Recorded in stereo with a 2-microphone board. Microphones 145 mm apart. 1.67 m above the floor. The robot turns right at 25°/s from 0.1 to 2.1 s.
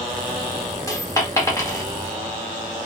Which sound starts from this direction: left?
A dropped coin, at 0.9 s.